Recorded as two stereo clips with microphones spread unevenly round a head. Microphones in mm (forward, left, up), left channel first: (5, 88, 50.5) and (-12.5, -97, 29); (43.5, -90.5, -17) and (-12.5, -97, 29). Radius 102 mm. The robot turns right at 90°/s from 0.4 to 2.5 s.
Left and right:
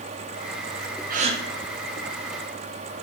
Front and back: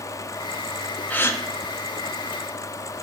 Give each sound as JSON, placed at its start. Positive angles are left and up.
{"t": 1.1, "sound": "a gasp", "azimuth_deg": -50, "distance_m": 1.4}